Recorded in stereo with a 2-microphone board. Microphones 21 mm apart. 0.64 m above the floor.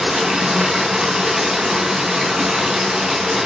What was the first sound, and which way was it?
Running water, 15° right (ahead or behind).